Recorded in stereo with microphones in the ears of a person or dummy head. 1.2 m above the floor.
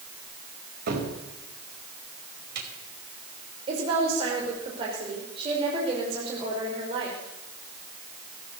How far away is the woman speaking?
About 5.5 m.